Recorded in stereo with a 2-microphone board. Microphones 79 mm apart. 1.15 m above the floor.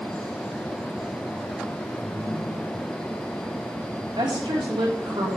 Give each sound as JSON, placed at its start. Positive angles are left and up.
{"t": 2.0, "sound": "a ringtone", "side_deg": -60, "distance_m": 6.5}
{"t": 4.2, "sound": "a woman speaking", "side_deg": -80, "distance_m": 3.0}